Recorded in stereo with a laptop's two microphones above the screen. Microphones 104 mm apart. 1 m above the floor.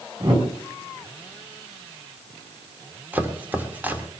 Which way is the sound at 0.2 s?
50° right (ahead or behind).